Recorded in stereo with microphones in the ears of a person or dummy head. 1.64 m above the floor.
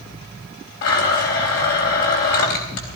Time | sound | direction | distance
0.8 | a blender | 65° left (ahead or behind) | 4 m